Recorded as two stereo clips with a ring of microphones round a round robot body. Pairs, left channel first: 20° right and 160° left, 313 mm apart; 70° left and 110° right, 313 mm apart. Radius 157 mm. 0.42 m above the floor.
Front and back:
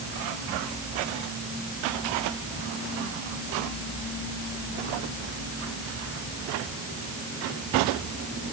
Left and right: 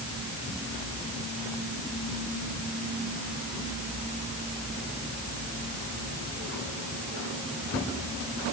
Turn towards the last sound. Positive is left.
No sound to turn to.